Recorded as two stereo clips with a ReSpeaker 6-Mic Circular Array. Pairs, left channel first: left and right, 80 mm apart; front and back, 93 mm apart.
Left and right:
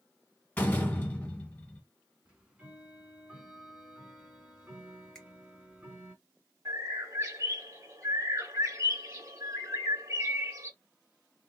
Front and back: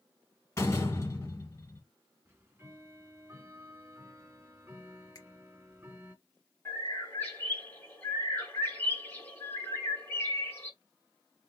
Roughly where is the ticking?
Behind right.